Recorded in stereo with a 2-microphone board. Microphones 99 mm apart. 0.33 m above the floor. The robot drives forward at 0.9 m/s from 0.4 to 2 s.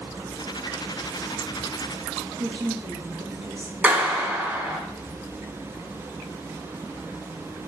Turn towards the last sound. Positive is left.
turn(degrees=-15)  # may be behind; listen again after turning